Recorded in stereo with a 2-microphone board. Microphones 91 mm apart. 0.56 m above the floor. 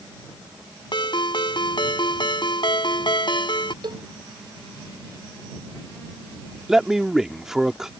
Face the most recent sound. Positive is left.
turn(degrees=-5)  # may be behind; listen again after turning